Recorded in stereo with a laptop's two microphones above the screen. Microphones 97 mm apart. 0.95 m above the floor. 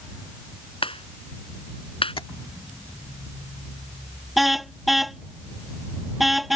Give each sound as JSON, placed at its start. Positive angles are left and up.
{"t": 0.8, "sound": "a clap", "side_deg": 70}
{"t": 2.2, "sound": "tapping", "side_deg": 70}
{"t": 4.4, "sound": "a car horn", "side_deg": 0}